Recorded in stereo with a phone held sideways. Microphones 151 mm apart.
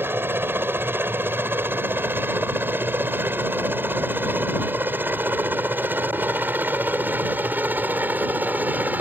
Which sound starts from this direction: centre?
A helicopter, at 0.0 s.